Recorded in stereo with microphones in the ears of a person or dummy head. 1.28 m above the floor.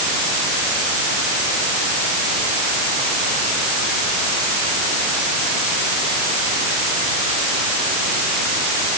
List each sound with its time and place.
Only background noise.